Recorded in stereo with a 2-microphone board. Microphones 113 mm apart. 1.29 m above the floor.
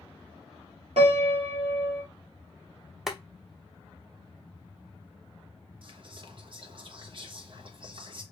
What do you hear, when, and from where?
1.0 s a piano: 65° right (ahead or behind), 1.9 m
3.1 s boiling: 5° right (ahead or behind), 0.7 m
5.8 s whispering: 50° right (ahead or behind), 1.0 m